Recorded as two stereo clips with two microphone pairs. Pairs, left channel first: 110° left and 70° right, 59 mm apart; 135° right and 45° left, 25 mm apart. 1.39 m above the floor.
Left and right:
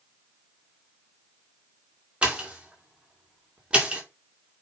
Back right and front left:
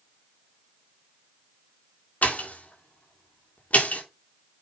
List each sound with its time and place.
2.2 s a pop: 145° right, 2.5 m